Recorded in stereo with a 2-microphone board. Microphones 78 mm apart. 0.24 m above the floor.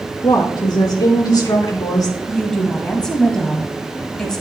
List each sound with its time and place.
0.2 s a woman speaking: 60° left (ahead or behind), 3 m; by 2.2 s 50° left (ahead or behind), 3 m
2.3 s a woman speaking: 10° left (ahead or behind), 1.4 m